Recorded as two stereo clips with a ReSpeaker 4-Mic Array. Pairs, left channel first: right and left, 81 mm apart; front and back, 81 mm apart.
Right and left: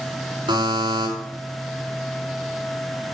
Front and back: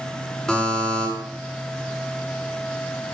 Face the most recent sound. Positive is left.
turn(degrees=85)